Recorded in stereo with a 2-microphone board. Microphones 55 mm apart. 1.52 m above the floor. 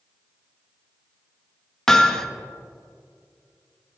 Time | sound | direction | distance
1.9 | hammering | 10° left (ahead or behind) | 1.0 m